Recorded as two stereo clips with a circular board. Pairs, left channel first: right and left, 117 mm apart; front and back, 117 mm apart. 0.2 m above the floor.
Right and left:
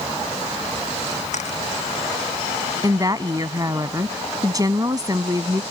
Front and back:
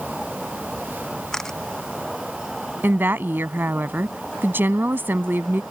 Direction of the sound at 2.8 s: 120° left.